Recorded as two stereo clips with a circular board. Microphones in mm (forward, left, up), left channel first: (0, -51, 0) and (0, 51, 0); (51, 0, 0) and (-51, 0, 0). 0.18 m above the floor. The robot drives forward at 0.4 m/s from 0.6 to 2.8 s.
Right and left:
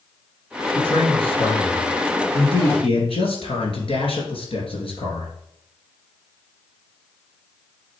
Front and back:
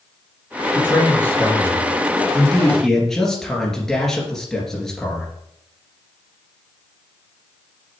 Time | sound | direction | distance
0.8 | a man speaking | 65° right | 2.5 m